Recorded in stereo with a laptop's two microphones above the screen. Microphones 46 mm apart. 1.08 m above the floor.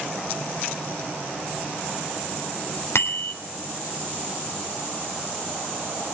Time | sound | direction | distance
3.0 | a bicycle bell | 70° left (ahead or behind) | 2.5 m